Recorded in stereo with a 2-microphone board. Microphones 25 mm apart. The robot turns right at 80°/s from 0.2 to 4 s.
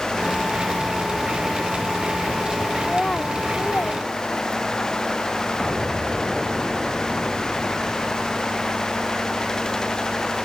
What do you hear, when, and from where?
2.8 s a child speaking: 10° left (ahead or behind); by 4.9 s 75° left (ahead or behind)
5.6 s an explosion: 25° right (ahead or behind)